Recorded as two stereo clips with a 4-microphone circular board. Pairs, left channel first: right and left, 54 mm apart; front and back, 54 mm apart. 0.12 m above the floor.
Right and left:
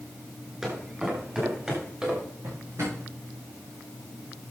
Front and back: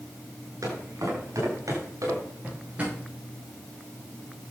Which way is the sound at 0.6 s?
170° left.